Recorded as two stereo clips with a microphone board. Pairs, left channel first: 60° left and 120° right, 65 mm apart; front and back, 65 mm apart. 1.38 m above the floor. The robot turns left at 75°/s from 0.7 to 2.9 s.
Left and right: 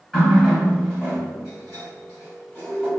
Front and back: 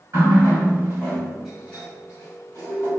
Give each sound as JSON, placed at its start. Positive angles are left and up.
{"t": 0.1, "sound": "a running tap", "azimuth_deg": 145, "distance_m": 1.6}